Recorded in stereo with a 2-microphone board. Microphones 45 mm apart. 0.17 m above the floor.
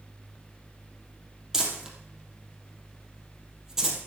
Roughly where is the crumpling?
Centre.